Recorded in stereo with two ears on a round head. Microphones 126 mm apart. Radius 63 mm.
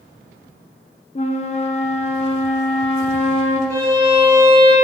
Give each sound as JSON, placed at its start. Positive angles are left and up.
{"t": 1.1, "sound": "a flute", "side_deg": 45, "distance_m": 0.6}
{"t": 3.7, "sound": "a violin", "side_deg": -20, "distance_m": 1.3}